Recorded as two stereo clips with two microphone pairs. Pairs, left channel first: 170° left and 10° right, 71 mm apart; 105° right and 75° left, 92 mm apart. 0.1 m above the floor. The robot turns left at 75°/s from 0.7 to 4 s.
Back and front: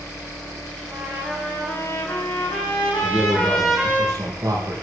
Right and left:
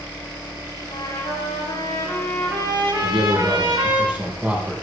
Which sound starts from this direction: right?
A trumpet, at 0.9 s.